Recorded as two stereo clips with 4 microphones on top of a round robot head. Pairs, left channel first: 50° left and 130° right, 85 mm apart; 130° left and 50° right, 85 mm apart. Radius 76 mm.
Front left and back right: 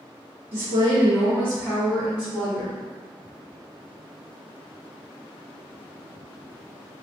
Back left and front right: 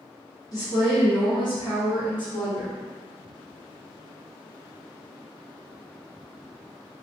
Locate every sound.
0.5 s a woman speaking: 165° left, 1.3 m; by 2.8 s 130° left, 2 m